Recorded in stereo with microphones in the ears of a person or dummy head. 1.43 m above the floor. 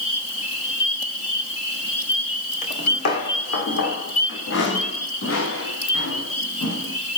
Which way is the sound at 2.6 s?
45° left (ahead or behind).